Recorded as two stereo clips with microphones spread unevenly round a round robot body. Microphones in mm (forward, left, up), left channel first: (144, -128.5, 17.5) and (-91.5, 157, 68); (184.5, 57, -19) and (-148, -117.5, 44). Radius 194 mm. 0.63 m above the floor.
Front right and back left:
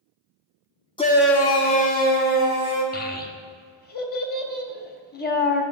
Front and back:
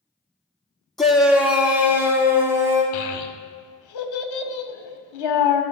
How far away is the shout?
About 0.9 m.